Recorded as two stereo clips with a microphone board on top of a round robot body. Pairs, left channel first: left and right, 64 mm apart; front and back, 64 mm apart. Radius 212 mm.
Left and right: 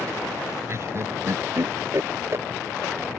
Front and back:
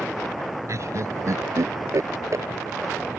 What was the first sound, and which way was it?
Laughter, 135° right.